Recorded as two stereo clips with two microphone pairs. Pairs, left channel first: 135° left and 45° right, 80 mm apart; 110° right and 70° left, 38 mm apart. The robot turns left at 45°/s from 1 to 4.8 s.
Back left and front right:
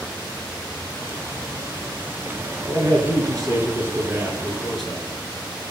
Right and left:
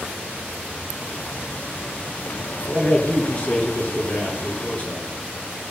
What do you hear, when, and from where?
2.7 s a man speaking: 40° right, 2.5 m; by 5.1 s 135° right, 2.5 m